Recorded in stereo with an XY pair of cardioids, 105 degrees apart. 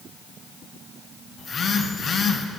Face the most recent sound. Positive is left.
turn(degrees=45)